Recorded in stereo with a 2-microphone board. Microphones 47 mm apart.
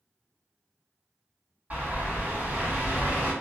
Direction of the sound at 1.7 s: 35° right (ahead or behind).